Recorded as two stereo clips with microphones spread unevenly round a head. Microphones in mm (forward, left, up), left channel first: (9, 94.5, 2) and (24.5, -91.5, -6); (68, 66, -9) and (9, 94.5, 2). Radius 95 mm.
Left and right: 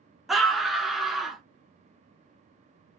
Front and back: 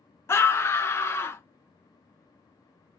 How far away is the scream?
About 0.7 m.